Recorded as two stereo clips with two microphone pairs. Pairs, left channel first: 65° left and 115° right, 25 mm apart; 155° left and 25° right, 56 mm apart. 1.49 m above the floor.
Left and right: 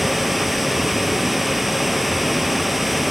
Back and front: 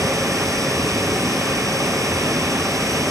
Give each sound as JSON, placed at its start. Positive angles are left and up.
{"t": 0.0, "sound": "running water", "azimuth_deg": -30}